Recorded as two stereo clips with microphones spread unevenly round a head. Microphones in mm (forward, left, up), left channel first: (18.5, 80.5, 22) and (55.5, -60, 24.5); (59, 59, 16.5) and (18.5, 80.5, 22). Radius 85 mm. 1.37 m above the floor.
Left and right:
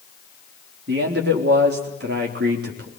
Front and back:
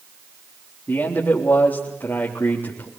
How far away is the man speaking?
About 3.5 m.